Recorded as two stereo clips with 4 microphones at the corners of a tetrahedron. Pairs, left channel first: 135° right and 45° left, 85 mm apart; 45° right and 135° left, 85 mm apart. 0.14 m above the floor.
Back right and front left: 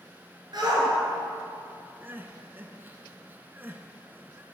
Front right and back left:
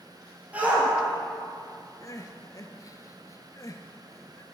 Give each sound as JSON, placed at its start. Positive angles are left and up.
{"t": 0.5, "sound": "a shout", "azimuth_deg": 65, "distance_m": 2.5}
{"t": 2.0, "sound": "crying", "azimuth_deg": -15, "distance_m": 0.5}